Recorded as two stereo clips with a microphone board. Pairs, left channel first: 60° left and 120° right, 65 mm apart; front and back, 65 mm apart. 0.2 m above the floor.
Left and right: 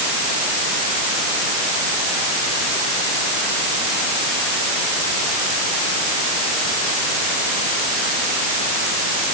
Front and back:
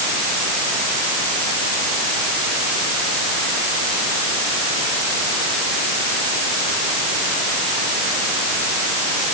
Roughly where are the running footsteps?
No running footsteps in this recording.